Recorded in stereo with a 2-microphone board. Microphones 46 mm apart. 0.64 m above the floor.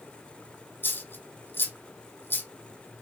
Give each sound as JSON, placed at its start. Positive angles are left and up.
{"t": 0.8, "sound": "a dropped coin", "side_deg": 50, "distance_m": 2.0}